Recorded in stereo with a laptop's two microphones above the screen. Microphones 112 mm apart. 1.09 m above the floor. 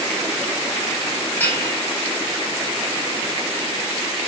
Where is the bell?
15° left (ahead or behind), 1.9 m.